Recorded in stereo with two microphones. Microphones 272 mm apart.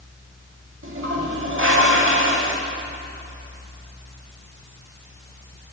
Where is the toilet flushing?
50° right (ahead or behind), 0.6 m.